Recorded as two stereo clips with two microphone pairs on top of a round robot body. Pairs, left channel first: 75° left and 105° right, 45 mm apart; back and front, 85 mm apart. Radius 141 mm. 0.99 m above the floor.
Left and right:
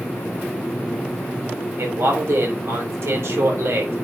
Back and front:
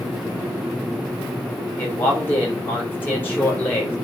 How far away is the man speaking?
About 3 m.